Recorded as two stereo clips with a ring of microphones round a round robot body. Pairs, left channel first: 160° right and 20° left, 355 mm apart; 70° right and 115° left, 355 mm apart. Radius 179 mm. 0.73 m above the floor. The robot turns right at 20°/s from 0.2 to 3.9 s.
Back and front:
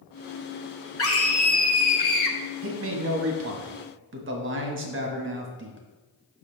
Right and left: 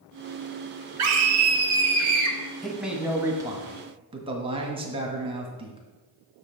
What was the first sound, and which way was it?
A scream, 155° left.